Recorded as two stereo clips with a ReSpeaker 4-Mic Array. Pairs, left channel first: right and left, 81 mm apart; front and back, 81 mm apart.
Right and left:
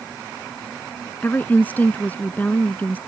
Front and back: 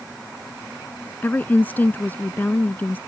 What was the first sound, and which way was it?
A woman speaking, 45° right.